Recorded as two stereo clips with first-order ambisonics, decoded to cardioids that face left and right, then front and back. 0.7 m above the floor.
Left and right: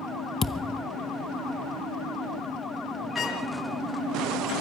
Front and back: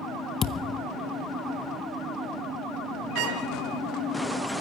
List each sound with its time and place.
0.4 s a thud: 35° left, 0.7 m
3.1 s a trumpet: 165° left, 5.5 m